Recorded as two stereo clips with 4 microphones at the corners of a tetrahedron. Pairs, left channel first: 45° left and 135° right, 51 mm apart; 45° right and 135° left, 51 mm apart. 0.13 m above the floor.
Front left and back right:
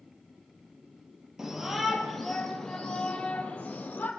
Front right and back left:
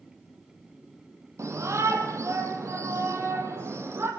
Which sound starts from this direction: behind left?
A shout, at 1.4 s.